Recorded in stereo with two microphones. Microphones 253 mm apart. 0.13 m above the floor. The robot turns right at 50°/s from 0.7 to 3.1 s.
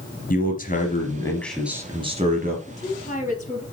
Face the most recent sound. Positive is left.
turn(degrees=30)  # may be behind; listen again after turning